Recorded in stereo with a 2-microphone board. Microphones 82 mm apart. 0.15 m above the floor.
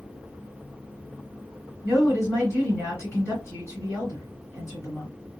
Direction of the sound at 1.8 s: 35° left (ahead or behind).